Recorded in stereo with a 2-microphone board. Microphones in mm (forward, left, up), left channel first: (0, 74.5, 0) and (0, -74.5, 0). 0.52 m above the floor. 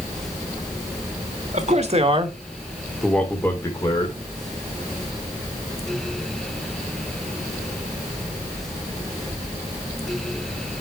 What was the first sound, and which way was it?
A man speaking, 50° right (ahead or behind).